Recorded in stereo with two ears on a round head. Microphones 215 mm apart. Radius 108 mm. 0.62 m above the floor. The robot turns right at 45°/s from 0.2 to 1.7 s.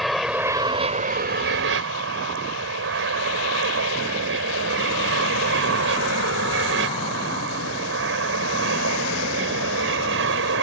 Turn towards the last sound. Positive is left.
turn(degrees=-110)